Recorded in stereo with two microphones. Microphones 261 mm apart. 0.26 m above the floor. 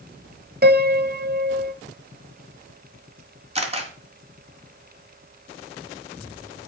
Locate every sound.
0.6 s a piano: 40° right (ahead or behind), 0.7 m
3.5 s a camera shutter: 25° right (ahead or behind), 1.9 m